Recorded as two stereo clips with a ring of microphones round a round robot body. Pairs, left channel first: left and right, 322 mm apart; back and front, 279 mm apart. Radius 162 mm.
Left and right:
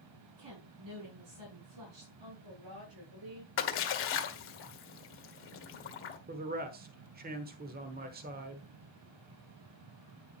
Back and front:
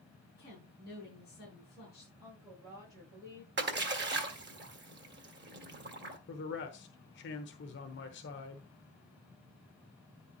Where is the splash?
45° left, 1.8 m.